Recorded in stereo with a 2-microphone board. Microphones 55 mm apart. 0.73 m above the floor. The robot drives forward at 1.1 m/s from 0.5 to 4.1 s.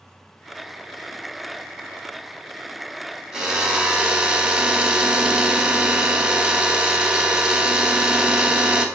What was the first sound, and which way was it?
A drill, 10° right (ahead or behind).